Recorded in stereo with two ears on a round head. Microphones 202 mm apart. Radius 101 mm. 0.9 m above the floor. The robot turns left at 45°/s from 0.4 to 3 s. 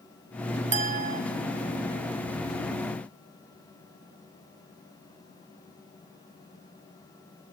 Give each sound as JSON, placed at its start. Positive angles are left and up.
{"t": 0.7, "sound": "a clink", "side_deg": -30, "distance_m": 0.8}